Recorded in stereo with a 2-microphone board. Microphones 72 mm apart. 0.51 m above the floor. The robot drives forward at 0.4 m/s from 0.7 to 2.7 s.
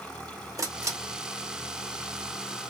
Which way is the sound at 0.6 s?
50° right (ahead or behind).